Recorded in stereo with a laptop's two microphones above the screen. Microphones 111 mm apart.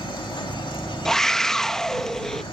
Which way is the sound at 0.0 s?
50° left (ahead or behind).